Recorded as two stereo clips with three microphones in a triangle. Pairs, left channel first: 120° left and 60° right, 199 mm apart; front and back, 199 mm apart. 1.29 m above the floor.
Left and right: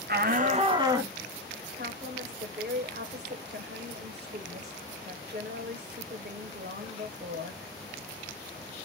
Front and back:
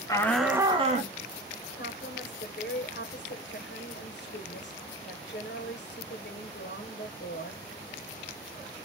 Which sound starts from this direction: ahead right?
A woman speaking, at 1.8 s.